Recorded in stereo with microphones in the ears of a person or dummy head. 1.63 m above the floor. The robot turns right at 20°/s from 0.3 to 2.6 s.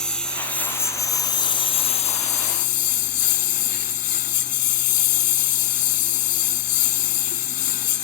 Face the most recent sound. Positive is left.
turn(degrees=50)